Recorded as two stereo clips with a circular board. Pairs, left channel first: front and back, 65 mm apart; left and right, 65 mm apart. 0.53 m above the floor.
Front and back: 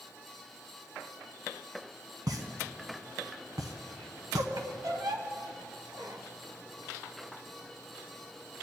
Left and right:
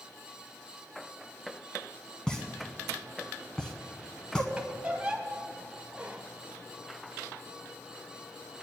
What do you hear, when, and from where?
2.3 s a pop: 165° left, 1.0 m
4.6 s a squeak: 165° right, 1.1 m